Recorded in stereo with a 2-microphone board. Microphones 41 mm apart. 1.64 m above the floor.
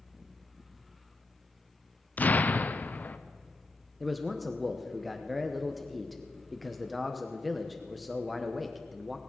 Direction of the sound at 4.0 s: Centre (ahead or behind).